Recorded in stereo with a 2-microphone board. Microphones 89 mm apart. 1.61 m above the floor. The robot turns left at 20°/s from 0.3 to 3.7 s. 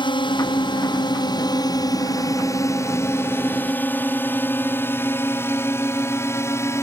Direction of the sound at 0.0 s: 65° left (ahead or behind).